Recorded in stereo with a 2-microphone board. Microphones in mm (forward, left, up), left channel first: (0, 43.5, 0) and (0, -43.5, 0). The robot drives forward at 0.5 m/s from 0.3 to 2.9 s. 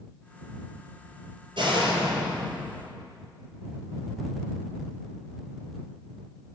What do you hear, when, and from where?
1.6 s a door slam: 75° right (ahead or behind), 3 m; by 2.8 s 70° right (ahead or behind), 3 m